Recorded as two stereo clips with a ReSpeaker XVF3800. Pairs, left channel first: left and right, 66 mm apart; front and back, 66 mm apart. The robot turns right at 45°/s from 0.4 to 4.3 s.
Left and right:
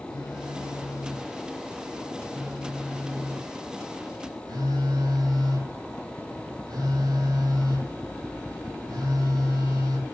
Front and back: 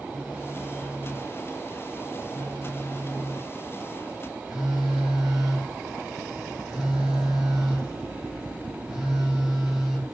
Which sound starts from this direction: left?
A phone buzzing, at 0.1 s.